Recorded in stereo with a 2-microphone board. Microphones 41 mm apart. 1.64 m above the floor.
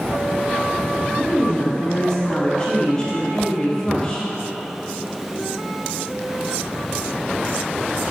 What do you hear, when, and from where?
1.1 s a woman speaking: 20° left (ahead or behind), 0.9 m